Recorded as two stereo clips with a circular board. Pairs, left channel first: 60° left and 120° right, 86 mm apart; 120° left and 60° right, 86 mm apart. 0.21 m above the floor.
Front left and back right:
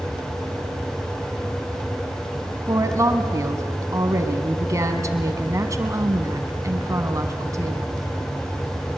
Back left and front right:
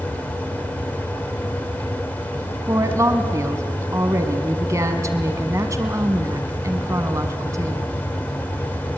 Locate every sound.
2.7 s a woman speaking: 90° right, 1.4 m